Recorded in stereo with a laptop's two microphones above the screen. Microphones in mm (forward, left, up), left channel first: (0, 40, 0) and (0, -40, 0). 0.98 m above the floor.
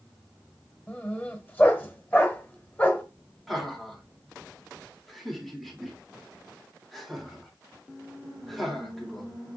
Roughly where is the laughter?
Centre.